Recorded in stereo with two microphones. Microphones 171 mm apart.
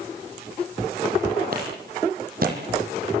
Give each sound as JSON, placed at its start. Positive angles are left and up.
{"t": 1.5, "sound": "a clap", "side_deg": -60, "distance_m": 6.5}